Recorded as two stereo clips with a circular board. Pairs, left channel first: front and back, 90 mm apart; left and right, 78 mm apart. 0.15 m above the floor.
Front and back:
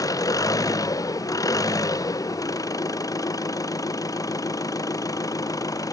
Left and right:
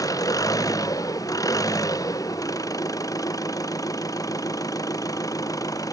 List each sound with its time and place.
0.0 s an engine running: 50° left